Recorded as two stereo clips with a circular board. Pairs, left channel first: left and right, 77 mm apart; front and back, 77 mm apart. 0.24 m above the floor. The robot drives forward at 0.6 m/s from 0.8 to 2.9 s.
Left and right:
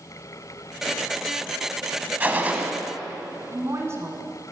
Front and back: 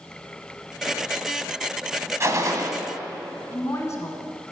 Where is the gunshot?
145° right, 1.2 m; by 2.7 s 155° right, 1.4 m.